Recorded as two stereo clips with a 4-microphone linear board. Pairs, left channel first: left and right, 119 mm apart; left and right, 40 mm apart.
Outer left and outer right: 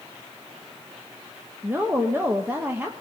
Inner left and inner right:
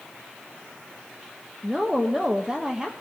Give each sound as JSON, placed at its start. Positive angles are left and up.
{"t": 1.6, "sound": "a woman speaking", "side_deg": -20, "distance_m": 1.3}